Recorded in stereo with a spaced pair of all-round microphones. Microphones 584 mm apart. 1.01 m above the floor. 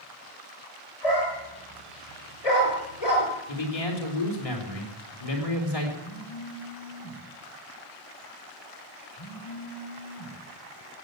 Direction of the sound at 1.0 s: 80° left.